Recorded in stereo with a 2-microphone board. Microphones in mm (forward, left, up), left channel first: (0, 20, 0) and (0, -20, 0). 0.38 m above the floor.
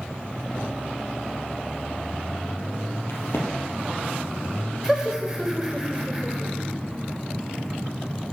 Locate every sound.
3.1 s a crack: 70° left (ahead or behind), 2 m
4.8 s laughter: 15° right (ahead or behind), 1.2 m